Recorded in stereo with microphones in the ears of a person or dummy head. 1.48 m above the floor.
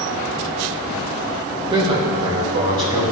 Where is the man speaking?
25° right (ahead or behind), 1.4 m; by 3.0 s 30° right (ahead or behind), 2.5 m.